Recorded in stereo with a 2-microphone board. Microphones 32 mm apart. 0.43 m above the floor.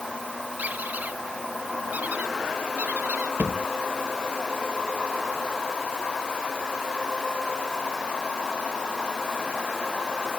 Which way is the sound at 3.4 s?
85° right.